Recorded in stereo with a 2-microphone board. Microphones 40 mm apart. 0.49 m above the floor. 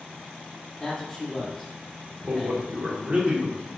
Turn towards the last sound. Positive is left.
turn(degrees=-30)  # may be behind; listen again after turning